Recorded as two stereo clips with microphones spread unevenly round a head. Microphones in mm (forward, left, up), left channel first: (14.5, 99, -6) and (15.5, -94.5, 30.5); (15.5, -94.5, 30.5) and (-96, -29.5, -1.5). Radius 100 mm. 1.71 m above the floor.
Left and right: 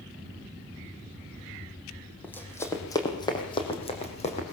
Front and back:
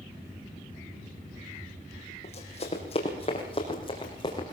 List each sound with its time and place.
2.2 s running footsteps: 5° left, 3.5 m; by 4.5 s 35° left, 4.5 m